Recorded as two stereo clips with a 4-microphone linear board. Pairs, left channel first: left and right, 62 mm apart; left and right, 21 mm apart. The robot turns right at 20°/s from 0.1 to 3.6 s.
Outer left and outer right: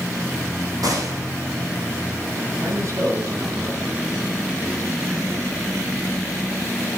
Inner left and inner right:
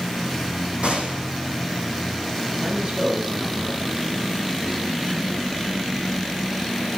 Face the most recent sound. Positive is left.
turn(degrees=-40)  # may be behind; listen again after turning